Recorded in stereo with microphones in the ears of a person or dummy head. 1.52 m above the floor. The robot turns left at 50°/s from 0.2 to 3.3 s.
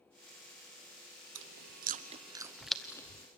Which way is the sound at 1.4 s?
60° right (ahead or behind).